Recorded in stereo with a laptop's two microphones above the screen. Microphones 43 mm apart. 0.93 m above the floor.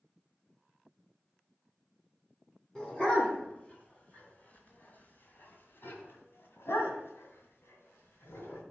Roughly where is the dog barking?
Centre.